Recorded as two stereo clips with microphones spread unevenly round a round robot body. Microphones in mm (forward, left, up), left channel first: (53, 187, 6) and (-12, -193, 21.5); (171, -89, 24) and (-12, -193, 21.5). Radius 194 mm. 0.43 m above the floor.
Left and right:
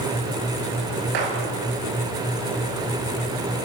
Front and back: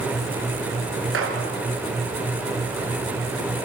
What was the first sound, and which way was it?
A gunshot, 135° right.